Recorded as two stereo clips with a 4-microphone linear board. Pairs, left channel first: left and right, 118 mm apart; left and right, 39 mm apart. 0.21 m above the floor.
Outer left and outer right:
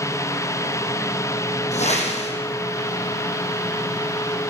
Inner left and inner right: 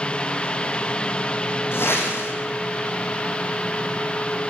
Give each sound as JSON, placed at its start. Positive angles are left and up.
{"t": 1.7, "sound": "a whoosh", "side_deg": 70, "distance_m": 7.0}